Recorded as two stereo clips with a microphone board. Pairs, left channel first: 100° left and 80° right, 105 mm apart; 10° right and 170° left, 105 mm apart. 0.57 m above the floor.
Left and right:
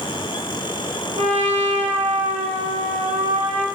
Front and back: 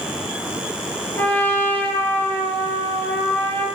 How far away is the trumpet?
About 4.5 m.